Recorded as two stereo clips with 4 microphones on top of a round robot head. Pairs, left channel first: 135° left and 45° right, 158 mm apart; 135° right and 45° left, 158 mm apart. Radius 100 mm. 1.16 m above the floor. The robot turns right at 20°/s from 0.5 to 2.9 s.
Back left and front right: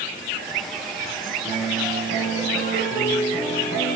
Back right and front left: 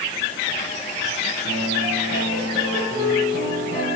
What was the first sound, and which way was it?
A piano, 35° left.